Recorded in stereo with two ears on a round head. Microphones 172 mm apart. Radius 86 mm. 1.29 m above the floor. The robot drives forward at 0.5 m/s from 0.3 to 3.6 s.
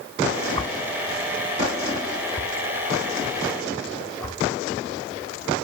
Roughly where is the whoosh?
Left.